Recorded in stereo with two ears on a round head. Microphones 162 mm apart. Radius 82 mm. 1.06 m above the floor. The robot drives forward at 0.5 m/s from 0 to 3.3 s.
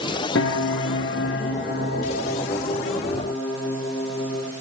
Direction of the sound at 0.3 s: 75° left (ahead or behind).